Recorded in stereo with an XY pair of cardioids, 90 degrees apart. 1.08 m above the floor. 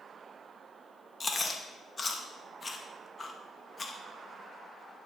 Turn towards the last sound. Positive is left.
turn(degrees=35)